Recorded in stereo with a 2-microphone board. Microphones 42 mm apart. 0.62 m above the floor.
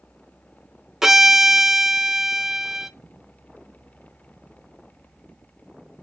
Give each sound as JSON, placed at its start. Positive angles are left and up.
{"t": 1.0, "sound": "a violin", "side_deg": -15, "distance_m": 0.8}